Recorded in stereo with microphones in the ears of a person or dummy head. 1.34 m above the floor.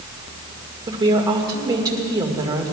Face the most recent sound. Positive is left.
turn(degrees=-15)  # may be behind; listen again after turning